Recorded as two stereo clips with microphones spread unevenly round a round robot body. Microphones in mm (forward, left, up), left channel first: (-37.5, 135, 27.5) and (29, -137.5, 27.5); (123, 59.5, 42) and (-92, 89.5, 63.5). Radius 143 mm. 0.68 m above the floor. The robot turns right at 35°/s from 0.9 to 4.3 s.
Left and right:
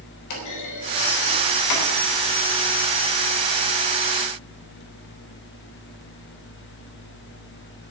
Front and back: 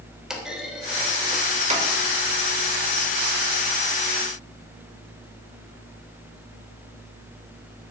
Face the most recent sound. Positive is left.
turn(degrees=-160)